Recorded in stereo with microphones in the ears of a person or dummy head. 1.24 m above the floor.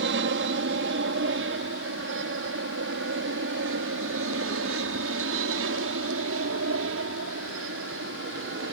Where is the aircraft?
60° right (ahead or behind); by 8.7 s 70° right (ahead or behind).